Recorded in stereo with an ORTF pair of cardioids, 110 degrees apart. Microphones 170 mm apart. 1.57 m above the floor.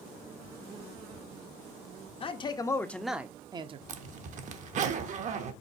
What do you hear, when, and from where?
2.2 s a man speaking: 35° left, 0.8 m; by 3.8 s 40° right, 0.7 m
3.9 s a zipper: 50° right, 0.8 m